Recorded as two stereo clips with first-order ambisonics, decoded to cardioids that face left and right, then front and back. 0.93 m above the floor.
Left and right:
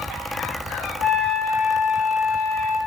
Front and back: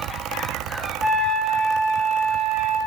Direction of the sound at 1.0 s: 60° right.